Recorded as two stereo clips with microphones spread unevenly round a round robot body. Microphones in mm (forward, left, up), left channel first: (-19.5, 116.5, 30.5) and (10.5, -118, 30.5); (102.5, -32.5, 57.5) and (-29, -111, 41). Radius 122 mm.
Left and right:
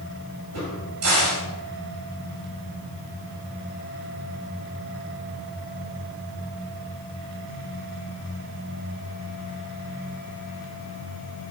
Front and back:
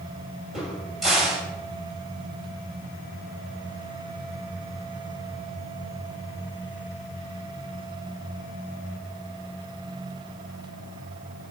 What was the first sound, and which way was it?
A crack, 60° right.